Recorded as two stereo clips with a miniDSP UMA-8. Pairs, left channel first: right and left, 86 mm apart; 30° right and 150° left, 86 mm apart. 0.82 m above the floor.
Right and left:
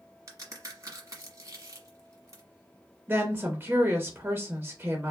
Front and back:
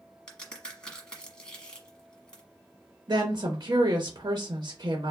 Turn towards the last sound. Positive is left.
turn(degrees=150)